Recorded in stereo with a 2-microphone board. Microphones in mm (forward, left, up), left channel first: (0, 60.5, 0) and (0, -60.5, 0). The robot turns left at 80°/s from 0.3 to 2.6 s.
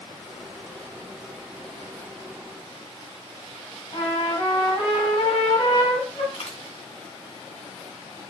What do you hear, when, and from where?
3.9 s a trumpet: 75° left (ahead or behind), 2 m
6.3 s a dropped coin: 70° left (ahead or behind), 2.5 m